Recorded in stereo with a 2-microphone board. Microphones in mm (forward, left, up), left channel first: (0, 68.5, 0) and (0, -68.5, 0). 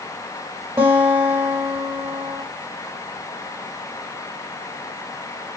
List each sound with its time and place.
0.8 s a guitar: 10° right (ahead or behind), 3 m